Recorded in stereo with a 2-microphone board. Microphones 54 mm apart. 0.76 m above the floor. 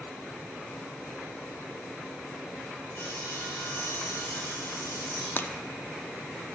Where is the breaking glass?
40° left (ahead or behind), 0.5 m.